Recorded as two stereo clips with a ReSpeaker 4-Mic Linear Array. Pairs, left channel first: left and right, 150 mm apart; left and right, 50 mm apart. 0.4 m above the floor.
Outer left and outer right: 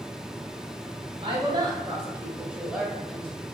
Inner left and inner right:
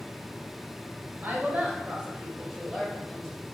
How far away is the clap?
I don't hear a clap.